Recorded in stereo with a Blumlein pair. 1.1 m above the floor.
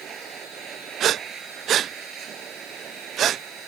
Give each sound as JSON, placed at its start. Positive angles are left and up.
{"t": 0.0, "sound": "a machine running", "azimuth_deg": -25}
{"t": 1.0, "sound": "breathing", "azimuth_deg": -30}